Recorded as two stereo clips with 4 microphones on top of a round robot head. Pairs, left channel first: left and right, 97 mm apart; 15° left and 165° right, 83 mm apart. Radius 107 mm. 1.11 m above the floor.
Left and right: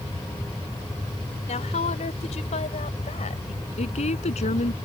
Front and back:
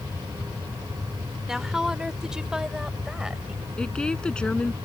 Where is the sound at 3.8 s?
90° left.